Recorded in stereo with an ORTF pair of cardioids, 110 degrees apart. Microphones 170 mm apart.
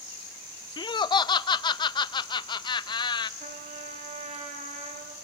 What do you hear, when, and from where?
0.8 s laughter: 30° left, 0.8 m
3.4 s a trumpet: 45° right, 2.5 m